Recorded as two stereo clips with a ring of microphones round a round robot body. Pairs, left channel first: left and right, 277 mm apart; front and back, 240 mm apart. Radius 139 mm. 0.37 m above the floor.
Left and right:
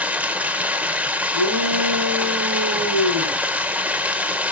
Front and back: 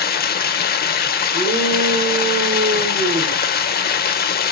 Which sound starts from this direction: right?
A shout, at 1.3 s.